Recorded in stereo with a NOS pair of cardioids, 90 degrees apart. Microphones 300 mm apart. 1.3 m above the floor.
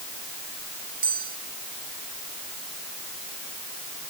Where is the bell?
30° right.